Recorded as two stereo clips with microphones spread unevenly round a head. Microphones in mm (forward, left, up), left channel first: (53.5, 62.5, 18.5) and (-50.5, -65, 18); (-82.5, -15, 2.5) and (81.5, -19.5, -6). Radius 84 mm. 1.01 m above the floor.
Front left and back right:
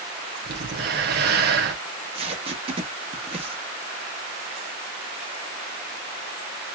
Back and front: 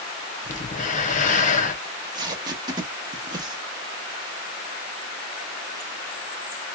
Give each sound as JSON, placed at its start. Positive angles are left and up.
{"t": 0.5, "sound": "breathing", "azimuth_deg": -150, "distance_m": 1.0}
{"t": 1.9, "sound": "tape being pulled", "azimuth_deg": -70, "distance_m": 1.0}